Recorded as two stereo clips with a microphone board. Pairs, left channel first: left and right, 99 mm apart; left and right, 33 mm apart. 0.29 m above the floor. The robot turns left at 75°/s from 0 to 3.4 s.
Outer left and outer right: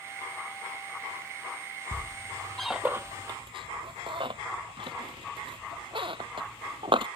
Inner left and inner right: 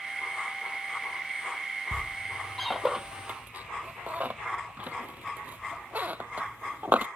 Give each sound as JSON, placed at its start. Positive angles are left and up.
{"t": 1.9, "sound": "a squeak", "side_deg": 55}